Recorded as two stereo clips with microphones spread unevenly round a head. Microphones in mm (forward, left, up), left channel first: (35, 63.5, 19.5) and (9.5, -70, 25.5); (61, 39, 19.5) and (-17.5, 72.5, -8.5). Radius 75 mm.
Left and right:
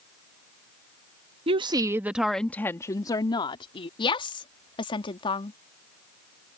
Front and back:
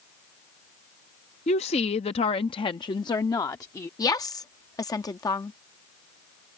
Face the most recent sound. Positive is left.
turn(degrees=25)